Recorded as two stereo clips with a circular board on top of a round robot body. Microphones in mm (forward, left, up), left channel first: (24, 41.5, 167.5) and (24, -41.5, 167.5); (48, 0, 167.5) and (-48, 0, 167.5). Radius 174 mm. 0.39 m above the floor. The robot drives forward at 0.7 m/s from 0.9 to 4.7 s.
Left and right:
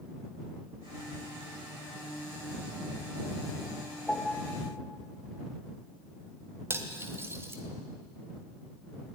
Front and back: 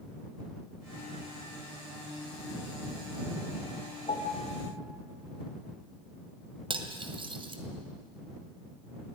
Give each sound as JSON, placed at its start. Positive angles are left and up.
{"t": 4.1, "sound": "a piano", "azimuth_deg": 15, "distance_m": 1.5}
{"t": 6.7, "sound": "cutlery clinking", "azimuth_deg": -150, "distance_m": 1.9}